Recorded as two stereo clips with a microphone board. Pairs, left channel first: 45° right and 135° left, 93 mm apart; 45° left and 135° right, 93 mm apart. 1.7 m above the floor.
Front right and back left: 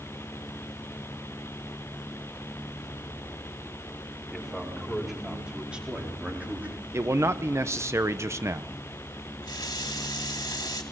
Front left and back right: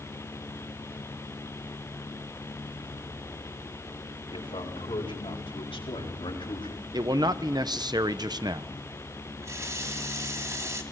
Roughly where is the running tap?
Right.